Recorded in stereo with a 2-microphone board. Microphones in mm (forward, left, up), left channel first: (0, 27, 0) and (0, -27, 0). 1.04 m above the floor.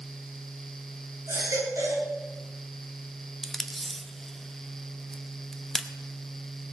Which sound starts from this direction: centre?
Tape being pulled, at 3.4 s.